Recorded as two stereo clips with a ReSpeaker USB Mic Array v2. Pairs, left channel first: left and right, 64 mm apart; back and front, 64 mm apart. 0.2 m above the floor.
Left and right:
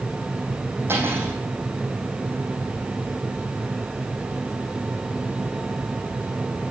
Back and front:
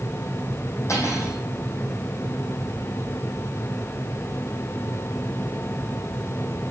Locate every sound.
0.9 s cutlery clinking: 145° right, 6.5 m